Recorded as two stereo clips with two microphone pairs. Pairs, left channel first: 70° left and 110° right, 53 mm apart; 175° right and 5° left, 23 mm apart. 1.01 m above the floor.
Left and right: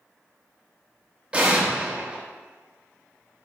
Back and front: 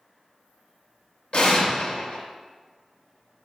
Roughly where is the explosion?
Behind.